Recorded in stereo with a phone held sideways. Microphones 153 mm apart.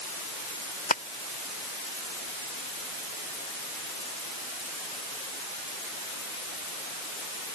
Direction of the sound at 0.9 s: 70° left (ahead or behind).